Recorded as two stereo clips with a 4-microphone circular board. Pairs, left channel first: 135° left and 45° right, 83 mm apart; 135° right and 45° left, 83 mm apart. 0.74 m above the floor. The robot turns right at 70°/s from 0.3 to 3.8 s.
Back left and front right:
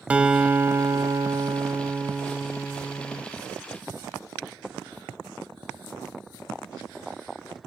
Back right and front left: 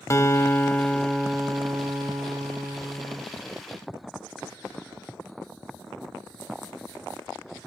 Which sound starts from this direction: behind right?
A guitar, at 0.1 s.